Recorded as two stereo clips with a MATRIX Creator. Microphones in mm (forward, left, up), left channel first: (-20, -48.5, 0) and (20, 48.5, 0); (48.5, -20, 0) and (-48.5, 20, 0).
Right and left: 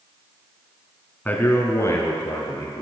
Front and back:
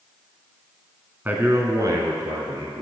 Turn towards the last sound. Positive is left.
turn(degrees=-165)